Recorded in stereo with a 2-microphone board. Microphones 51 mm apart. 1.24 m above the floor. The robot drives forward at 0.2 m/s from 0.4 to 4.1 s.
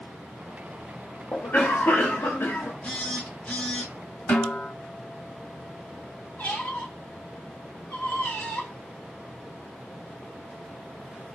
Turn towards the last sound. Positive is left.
turn(degrees=30)  # may be behind; listen again after turning